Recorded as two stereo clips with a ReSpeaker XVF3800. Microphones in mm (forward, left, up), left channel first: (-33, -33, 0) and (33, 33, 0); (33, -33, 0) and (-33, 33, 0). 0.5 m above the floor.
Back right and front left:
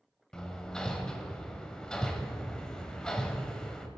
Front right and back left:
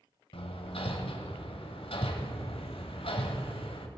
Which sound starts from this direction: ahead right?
Hammering, at 0.3 s.